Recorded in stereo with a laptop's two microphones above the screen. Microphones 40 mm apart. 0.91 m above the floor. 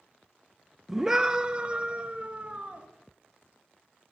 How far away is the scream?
About 0.8 m.